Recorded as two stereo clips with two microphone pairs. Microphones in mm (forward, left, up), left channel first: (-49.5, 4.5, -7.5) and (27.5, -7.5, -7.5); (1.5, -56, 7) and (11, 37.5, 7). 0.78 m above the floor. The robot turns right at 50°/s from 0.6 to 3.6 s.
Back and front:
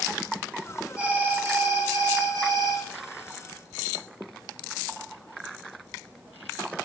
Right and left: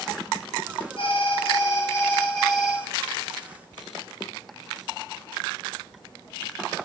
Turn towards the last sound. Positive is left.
turn(degrees=45)